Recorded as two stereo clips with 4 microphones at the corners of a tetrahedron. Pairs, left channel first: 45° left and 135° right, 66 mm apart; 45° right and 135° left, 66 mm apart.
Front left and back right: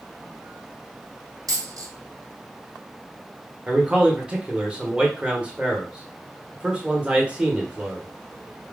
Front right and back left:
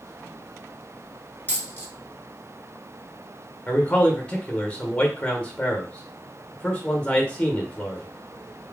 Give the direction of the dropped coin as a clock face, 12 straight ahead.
4 o'clock.